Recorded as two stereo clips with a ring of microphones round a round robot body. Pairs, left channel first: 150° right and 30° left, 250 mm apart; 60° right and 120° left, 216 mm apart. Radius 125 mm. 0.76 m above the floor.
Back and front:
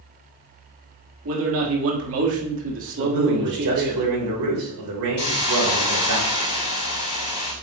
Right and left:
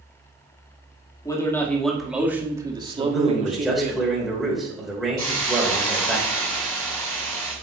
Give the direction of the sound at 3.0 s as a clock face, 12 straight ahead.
11 o'clock.